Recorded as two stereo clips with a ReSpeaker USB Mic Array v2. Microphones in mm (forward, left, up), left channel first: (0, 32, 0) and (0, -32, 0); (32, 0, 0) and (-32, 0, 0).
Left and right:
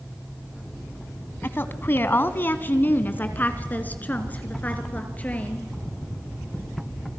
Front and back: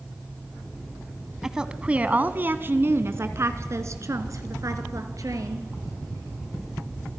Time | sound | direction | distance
1.4 | a woman speaking | 105° left | 1.2 m